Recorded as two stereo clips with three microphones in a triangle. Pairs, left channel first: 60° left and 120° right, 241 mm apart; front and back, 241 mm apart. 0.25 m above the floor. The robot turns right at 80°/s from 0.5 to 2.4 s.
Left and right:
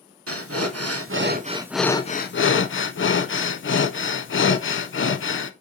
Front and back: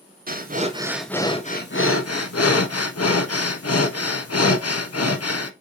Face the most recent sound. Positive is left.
turn(degrees=20)